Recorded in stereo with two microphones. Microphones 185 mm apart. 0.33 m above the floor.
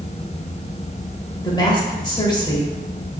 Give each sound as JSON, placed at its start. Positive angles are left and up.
{"t": 1.4, "sound": "a woman speaking", "side_deg": 25, "distance_m": 1.1}